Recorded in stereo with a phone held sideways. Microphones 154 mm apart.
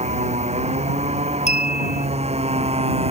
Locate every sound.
0.0 s a motorcycle: 45° right (ahead or behind)
1.5 s a clink: 50° left (ahead or behind)